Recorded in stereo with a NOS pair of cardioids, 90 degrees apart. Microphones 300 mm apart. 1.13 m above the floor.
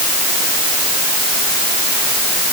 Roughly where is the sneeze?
I don't hear a sneeze.